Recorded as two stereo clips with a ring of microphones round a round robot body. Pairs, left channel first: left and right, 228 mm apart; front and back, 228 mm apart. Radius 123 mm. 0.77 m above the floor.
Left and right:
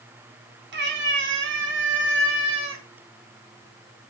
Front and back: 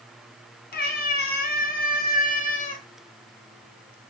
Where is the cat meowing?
50° right, 3.5 m; by 2.8 s 55° right, 1.8 m.